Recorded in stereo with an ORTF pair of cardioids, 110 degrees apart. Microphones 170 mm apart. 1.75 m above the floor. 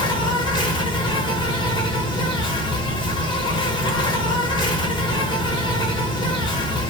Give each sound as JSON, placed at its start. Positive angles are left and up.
{"t": 0.0, "sound": "an insect", "azimuth_deg": 25, "distance_m": 0.9}